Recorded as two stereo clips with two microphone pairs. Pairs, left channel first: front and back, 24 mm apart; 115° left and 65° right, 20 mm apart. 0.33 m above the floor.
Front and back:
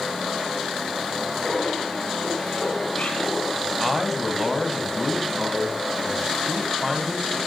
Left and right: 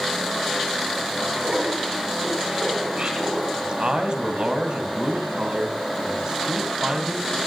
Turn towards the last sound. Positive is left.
turn(degrees=-90)